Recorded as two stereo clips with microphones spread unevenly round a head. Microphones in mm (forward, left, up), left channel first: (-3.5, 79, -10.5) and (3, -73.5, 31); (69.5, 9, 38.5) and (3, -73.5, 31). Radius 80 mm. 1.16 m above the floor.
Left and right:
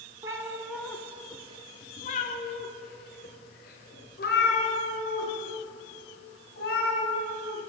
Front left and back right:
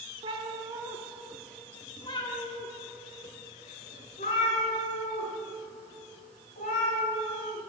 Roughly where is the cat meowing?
Behind right.